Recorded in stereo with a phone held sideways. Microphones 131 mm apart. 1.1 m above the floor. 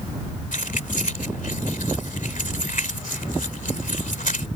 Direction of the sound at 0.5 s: 85° left.